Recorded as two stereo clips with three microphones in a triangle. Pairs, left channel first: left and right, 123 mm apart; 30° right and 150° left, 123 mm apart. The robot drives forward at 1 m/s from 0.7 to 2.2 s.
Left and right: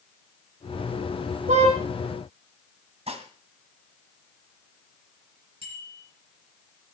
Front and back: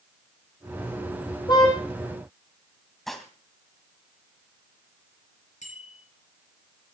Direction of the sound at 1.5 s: 85° right.